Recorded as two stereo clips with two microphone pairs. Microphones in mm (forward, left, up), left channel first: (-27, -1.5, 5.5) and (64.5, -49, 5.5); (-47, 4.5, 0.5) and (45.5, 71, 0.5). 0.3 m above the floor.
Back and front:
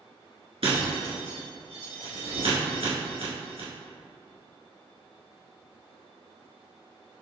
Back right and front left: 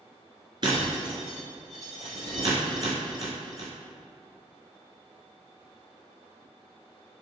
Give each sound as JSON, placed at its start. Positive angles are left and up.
{"t": 0.6, "sound": "breaking glass", "azimuth_deg": -10, "distance_m": 1.5}